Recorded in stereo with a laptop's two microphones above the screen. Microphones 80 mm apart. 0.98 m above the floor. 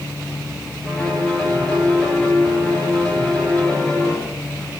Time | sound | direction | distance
0.8 | a piano | 15° left (ahead or behind) | 7 m